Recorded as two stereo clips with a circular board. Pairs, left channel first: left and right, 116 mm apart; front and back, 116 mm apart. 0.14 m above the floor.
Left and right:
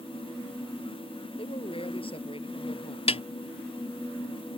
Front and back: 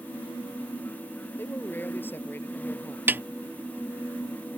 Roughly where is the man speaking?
Left.